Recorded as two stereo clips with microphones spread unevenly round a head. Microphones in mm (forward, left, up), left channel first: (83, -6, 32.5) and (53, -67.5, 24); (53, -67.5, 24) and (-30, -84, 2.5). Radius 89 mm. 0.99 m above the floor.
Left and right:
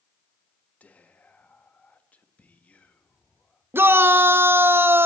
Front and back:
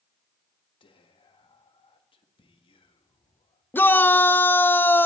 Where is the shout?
60° right, 0.9 m.